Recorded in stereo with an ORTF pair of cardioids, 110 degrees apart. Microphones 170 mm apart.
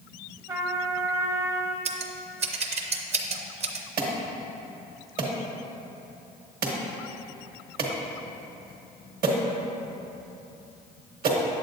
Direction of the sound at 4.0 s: 60° right.